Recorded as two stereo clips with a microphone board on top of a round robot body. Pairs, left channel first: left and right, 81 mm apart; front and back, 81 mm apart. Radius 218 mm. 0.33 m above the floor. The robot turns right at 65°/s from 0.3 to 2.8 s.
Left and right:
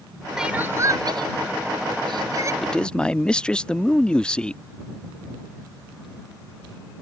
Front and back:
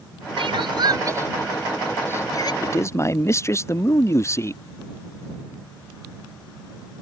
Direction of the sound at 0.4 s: 175° right.